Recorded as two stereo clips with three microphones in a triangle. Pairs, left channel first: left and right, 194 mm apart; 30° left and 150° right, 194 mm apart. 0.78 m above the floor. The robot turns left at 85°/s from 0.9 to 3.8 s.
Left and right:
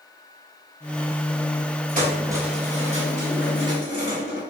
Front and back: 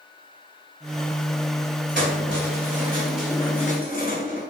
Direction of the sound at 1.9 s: 125° right.